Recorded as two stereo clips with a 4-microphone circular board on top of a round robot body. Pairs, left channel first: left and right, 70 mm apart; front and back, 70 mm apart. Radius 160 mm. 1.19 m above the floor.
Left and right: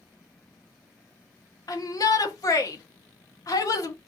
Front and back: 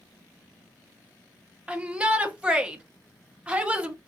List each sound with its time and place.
1.7 s a shout: 110° left, 1.1 m